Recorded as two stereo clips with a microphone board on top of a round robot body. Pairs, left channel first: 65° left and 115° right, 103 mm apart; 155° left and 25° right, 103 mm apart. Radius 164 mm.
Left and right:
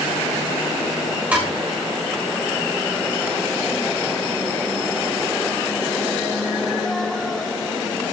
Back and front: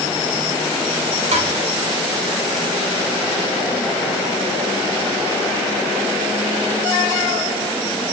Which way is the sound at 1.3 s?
35° right.